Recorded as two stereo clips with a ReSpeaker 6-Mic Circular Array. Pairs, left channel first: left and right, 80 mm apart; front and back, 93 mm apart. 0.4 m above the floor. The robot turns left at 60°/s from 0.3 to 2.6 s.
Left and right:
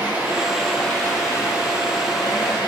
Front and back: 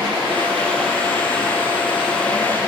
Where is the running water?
160° right, 6 m; by 2.7 s 60° left, 6 m.